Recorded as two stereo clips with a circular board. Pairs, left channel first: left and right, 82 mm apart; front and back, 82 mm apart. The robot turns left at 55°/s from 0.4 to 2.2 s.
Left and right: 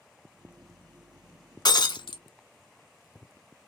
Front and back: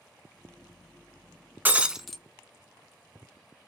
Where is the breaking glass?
115° left, 0.5 m; by 2.2 s 85° left, 0.5 m.